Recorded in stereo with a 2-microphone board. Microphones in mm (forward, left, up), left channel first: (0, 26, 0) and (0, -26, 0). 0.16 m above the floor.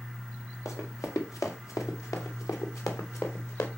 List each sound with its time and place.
0.7 s running footsteps: 80° left, 2.5 m; by 3.7 s 65° left (ahead or behind), 2.5 m